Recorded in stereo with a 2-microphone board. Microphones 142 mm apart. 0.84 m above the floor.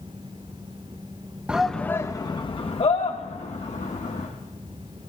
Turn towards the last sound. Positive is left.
turn(degrees=60)  # may be behind; listen again after turning